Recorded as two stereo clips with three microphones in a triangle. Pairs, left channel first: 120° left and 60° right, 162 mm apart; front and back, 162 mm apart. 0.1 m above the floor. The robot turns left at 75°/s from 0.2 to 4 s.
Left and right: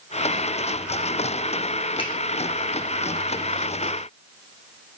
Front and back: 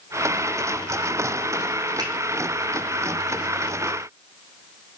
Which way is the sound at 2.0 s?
140° left.